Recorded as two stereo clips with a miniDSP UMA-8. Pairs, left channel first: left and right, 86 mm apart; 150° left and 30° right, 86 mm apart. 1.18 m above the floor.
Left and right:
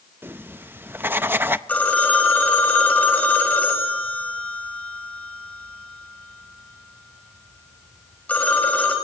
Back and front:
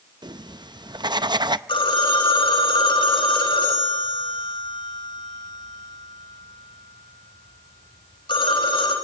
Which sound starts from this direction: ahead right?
Writing, at 0.2 s.